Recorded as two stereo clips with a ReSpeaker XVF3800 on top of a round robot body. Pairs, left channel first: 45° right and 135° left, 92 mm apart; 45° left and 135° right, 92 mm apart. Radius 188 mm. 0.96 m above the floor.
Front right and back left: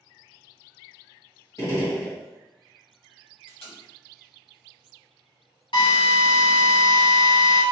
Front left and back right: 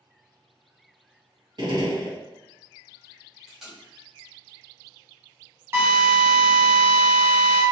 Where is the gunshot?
100° right, 2 m.